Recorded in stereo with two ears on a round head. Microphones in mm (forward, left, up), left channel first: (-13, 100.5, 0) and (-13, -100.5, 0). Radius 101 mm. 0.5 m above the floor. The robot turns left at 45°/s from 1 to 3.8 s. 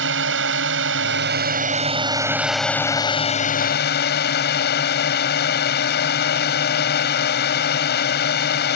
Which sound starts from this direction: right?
A drone, at 0.0 s.